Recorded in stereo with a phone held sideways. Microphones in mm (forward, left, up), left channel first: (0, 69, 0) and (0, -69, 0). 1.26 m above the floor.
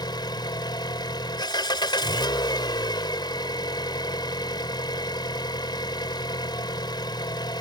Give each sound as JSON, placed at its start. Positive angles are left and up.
{"t": 0.0, "sound": "an engine running", "side_deg": 30}